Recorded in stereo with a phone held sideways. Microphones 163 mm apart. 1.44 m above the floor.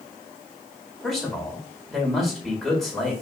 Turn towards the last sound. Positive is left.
turn(degrees=0)  # may be behind; listen again after turning